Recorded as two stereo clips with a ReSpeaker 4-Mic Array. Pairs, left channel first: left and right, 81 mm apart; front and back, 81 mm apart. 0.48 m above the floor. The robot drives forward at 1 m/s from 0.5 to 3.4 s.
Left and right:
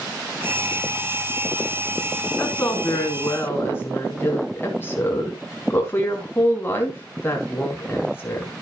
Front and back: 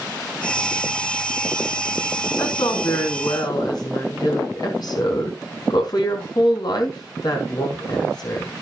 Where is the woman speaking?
20° left, 4.5 m; by 8.5 s 30° left, 3.5 m.